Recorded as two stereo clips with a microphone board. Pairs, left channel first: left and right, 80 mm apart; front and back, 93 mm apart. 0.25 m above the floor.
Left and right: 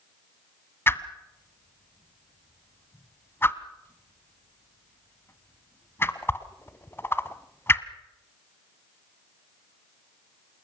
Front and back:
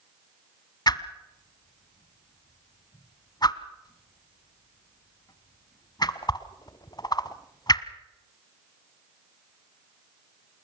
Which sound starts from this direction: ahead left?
A whoosh, at 0.9 s.